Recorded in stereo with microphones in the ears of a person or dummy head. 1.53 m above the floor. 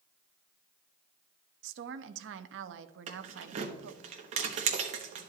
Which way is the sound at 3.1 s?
40° right (ahead or behind).